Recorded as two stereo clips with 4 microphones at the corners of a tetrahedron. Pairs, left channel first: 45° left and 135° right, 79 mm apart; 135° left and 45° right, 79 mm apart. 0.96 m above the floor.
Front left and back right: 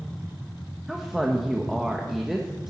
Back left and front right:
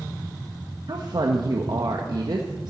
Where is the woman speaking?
45° right, 1.1 m.